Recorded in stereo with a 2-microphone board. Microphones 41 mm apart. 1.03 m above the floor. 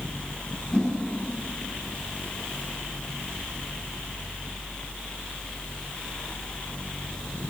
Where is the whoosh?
20° left (ahead or behind), 5.5 m.